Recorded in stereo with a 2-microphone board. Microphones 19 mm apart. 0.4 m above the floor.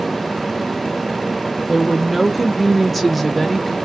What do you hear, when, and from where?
1.7 s a woman speaking: 5° right (ahead or behind), 1.1 m; by 3.8 s 10° left (ahead or behind), 0.9 m